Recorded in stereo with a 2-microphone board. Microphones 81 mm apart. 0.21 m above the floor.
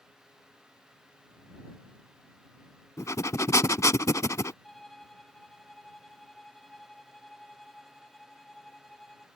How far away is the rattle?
No rattle in this recording.